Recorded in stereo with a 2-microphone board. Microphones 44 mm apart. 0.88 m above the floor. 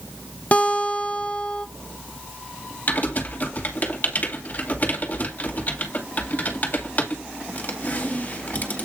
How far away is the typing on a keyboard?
About 2 m.